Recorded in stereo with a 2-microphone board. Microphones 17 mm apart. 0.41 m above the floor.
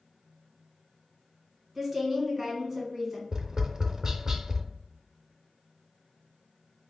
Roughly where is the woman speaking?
Right.